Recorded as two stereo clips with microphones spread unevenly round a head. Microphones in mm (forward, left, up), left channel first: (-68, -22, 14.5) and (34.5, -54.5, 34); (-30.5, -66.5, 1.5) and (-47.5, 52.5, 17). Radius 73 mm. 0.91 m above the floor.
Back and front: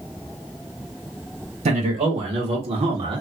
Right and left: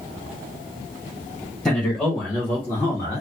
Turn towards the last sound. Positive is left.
turn(degrees=-45)